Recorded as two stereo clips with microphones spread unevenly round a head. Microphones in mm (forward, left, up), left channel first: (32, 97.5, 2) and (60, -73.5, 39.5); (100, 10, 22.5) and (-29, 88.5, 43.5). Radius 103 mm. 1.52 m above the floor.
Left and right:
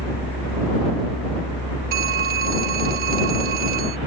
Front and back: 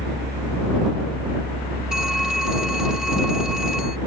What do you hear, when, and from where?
0.0 s a fan: 140° left
1.9 s a phone ringing: 125° right